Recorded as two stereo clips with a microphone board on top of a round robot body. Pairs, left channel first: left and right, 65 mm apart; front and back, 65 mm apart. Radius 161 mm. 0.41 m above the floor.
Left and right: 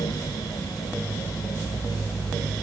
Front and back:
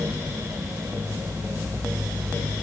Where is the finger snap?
I don't hear a finger snap.